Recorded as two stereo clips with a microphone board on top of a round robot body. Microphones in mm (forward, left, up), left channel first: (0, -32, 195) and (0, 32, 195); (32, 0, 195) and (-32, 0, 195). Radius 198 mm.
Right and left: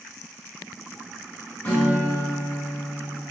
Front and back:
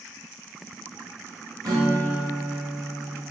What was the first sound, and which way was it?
A guitar, 155° right.